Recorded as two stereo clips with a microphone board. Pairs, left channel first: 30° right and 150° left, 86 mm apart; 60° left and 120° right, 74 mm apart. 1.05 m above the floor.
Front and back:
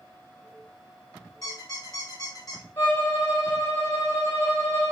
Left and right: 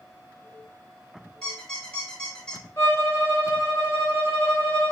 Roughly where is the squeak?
Ahead.